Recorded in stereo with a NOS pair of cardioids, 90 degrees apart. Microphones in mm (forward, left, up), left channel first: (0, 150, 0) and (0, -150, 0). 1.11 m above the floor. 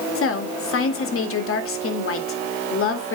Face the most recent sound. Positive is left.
turn(degrees=50)